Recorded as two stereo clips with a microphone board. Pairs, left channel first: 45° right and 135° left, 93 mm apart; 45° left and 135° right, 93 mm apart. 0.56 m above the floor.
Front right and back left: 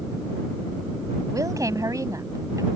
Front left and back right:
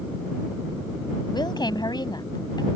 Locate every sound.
1.3 s a woman speaking: 85° left